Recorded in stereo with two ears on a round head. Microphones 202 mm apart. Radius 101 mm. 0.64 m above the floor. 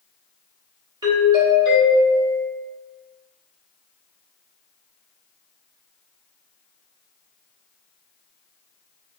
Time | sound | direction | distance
1.0 | a doorbell | 20° right (ahead or behind) | 1.0 m